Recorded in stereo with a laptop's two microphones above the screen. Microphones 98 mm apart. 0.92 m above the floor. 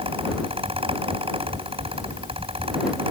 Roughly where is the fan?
Right.